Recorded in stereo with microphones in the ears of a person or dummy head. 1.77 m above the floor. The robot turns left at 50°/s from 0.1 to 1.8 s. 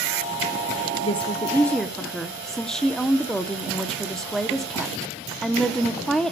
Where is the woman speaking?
40° left, 1.1 m; by 6.3 s straight ahead, 1.1 m.